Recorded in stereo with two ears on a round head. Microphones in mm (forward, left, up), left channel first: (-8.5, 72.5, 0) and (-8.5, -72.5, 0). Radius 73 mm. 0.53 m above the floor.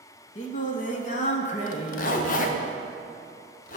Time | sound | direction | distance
0.3 | singing | 50° left (ahead or behind) | 0.8 m
1.7 | a zipper | 55° left (ahead or behind) | 0.6 m